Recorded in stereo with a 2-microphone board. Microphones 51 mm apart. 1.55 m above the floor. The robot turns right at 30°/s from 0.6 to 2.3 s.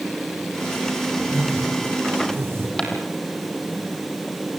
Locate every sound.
1.2 s a whoosh: 85° right, 6 m; by 2.7 s 50° right, 6 m
2.8 s footsteps: 15° left (ahead or behind), 3 m